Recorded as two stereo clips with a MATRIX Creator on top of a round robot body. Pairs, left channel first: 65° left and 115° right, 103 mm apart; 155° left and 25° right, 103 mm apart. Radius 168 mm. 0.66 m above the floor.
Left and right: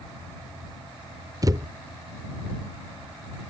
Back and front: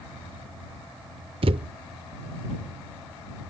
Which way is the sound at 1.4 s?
55° right.